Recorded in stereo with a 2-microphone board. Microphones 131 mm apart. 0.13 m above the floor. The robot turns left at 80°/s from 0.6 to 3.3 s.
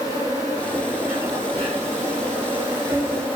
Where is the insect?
25° left, 1.0 m; by 3.4 s 170° left, 1.0 m.